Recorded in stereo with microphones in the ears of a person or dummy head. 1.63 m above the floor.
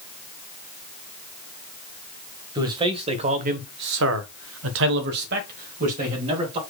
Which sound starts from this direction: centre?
A man speaking, at 2.5 s.